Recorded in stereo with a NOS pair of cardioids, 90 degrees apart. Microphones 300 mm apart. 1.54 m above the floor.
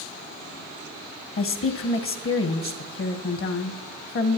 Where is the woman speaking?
45° left, 1.3 m.